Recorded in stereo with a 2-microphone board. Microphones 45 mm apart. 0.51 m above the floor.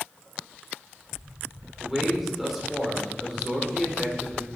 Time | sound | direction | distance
1.8 | a man speaking | 5° right (ahead or behind) | 1.6 m